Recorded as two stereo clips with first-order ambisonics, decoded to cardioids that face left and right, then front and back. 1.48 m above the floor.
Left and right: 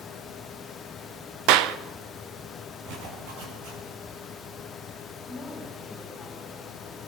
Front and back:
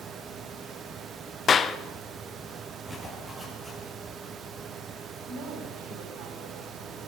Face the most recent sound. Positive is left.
turn(degrees=165)